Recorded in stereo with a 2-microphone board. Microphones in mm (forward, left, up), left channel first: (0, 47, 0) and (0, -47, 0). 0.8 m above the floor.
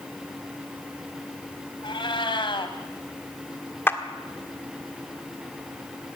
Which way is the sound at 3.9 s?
25° left (ahead or behind).